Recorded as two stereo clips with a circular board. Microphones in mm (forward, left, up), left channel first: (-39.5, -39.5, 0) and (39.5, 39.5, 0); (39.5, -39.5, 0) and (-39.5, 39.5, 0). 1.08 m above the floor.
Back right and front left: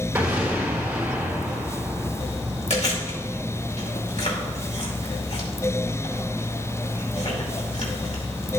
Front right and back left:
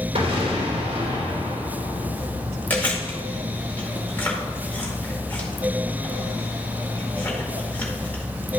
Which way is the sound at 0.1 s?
120° left.